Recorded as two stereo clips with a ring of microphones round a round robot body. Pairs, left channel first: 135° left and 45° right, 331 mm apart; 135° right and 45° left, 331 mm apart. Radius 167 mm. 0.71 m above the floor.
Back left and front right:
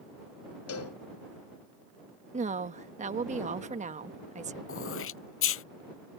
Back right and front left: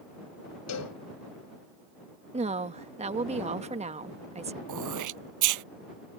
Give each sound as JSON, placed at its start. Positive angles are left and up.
{"t": 0.7, "sound": "a cowbell", "azimuth_deg": 180}
{"t": 2.3, "sound": "a woman speaking", "azimuth_deg": -5}
{"t": 4.7, "sound": "throat clearing", "azimuth_deg": 80}